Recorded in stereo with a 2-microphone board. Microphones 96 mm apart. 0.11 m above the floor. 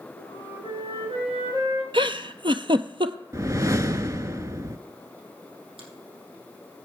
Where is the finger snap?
70° right (ahead or behind), 3.5 m.